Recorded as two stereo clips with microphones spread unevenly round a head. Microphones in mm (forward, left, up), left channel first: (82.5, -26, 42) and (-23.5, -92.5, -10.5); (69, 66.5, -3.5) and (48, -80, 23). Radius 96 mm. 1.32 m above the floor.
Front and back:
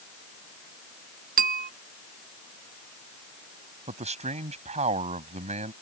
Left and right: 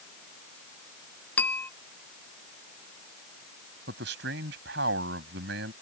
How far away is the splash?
I don't hear a splash.